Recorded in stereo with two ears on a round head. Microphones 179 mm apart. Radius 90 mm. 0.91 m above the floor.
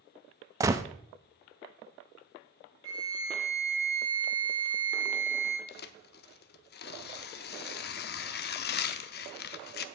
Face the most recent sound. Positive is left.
turn(degrees=55)  # may be behind; listen again after turning